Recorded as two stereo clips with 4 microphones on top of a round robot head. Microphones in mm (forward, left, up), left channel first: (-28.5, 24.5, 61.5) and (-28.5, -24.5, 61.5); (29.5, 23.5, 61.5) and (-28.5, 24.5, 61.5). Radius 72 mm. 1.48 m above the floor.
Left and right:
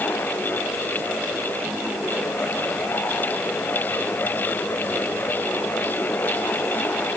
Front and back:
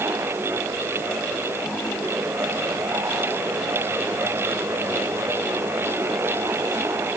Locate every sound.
Only background noise.